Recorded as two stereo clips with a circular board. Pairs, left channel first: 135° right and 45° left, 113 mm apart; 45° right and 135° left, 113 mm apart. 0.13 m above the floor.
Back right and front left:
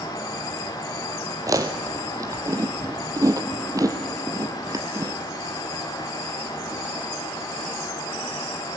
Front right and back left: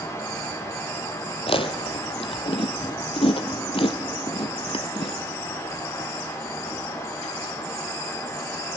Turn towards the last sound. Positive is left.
turn(degrees=-15)